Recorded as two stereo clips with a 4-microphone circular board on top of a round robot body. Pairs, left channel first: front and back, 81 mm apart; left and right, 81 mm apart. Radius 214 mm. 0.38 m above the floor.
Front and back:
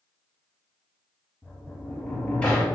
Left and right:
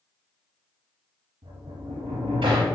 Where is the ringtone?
No ringtone in this recording.